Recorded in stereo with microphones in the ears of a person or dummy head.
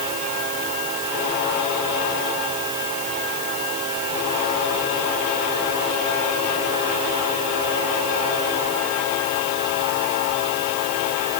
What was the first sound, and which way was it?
Only background noise.